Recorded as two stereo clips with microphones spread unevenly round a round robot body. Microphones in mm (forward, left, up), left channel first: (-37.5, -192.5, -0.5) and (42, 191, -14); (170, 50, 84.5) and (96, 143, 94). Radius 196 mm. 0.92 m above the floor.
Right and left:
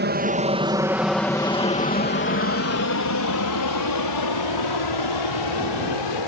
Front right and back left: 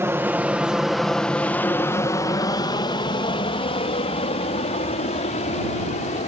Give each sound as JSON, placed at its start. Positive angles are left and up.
{"t": 0.0, "sound": "an aircraft", "azimuth_deg": 80}